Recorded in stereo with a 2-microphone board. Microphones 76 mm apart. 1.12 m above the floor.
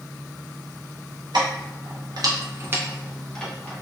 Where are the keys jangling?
80° right, 1.0 m; by 3.8 s 25° left (ahead or behind), 0.8 m.